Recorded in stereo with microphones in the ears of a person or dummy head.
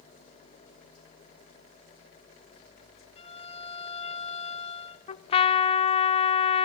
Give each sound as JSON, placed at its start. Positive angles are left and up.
{"t": 3.2, "sound": "a violin", "side_deg": 35, "distance_m": 2.0}
{"t": 5.1, "sound": "a trumpet", "side_deg": 30, "distance_m": 1.2}